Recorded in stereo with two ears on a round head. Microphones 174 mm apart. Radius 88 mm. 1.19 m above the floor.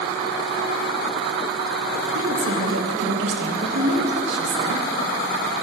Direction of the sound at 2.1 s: 60° right (ahead or behind).